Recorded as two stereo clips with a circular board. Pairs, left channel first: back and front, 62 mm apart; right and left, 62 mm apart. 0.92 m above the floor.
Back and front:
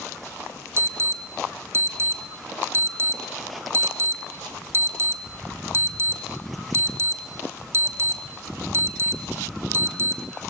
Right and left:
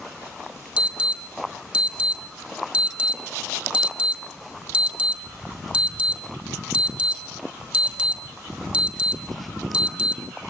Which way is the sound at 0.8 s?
25° left.